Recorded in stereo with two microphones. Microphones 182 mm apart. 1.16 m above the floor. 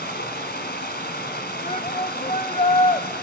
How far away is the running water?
About 2 m.